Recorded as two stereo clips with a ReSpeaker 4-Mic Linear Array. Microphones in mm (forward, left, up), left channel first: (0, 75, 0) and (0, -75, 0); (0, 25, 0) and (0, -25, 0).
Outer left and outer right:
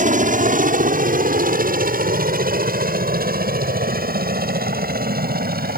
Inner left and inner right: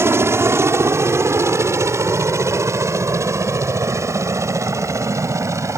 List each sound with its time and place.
0.0 s a helicopter: 60° right (ahead or behind); by 5.8 s 80° right